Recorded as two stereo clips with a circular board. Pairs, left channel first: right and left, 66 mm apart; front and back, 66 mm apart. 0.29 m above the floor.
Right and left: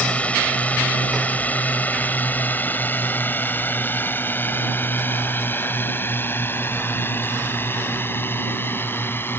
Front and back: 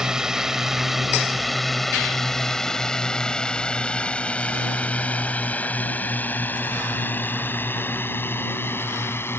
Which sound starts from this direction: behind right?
A drone, at 0.0 s.